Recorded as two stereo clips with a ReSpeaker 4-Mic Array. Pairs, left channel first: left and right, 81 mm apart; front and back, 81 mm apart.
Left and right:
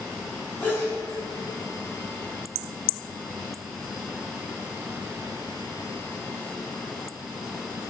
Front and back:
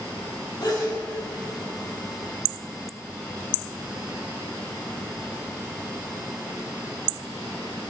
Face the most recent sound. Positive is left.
turn(degrees=30)